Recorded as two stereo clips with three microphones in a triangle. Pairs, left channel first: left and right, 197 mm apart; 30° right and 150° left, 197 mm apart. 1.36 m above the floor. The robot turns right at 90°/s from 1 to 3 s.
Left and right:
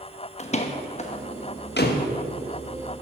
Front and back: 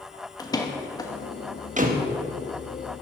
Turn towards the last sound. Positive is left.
turn(degrees=-145)